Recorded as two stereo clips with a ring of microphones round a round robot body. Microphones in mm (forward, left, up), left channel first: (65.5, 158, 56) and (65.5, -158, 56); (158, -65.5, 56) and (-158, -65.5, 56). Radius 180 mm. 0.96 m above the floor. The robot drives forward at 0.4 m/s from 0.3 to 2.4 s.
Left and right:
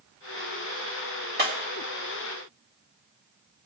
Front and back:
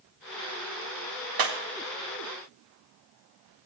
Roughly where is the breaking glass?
Behind right.